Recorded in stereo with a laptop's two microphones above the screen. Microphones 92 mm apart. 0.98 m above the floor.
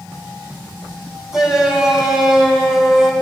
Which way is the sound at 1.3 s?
5° right (ahead or behind).